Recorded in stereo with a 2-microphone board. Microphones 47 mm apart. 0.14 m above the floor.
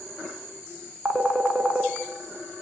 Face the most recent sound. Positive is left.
turn(degrees=-15)  # may be behind; listen again after turning